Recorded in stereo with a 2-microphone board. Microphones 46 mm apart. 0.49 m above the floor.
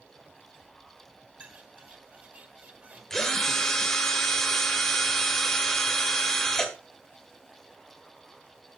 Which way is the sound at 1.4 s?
30° right (ahead or behind).